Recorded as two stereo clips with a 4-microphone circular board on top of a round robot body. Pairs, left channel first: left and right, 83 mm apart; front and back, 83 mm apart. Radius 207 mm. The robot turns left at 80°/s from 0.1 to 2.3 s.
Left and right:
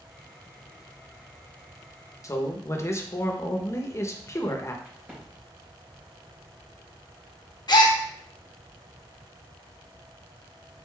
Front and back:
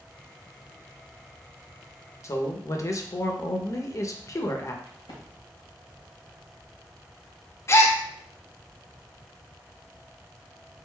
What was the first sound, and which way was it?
A man speaking, 45° left.